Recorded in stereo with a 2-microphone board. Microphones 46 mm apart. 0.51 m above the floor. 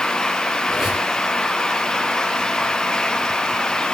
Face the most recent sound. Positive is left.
turn(degrees=-10)  # may be behind; listen again after turning